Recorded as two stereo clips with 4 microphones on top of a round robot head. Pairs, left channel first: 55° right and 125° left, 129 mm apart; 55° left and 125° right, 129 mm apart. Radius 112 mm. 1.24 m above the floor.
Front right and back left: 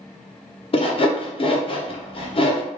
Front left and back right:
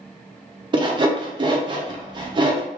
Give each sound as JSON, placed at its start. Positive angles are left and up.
{"t": 0.7, "sound": "sawing", "azimuth_deg": -85, "distance_m": 0.7}